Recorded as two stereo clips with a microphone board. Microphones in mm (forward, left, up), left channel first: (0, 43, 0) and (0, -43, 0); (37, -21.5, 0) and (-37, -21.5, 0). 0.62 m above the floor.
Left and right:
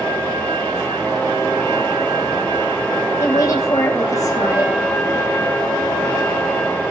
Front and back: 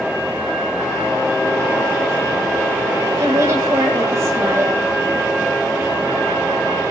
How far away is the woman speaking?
About 3.5 m.